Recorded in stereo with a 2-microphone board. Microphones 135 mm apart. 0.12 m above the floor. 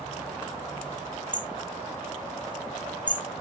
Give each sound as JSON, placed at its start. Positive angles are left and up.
{"t": 1.3, "sound": "hammering", "side_deg": -75, "distance_m": 4.0}